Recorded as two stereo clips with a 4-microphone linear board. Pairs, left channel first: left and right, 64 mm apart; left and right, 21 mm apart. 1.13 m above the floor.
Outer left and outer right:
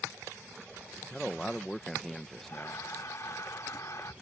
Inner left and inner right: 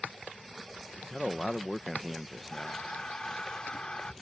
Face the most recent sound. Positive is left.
turn(degrees=60)  # may be behind; listen again after turning